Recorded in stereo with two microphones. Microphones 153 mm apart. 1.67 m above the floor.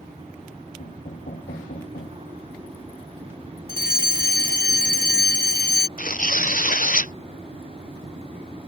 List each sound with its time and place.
0.8 s knocking: 90° left
3.7 s a fire alarm: 70° left (ahead or behind)
6.0 s tearing paper: 60° left (ahead or behind)